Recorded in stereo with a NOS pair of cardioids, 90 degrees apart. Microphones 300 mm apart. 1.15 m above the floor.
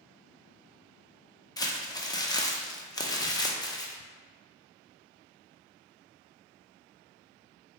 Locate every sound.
1.6 s crumpling: 15° left, 0.6 m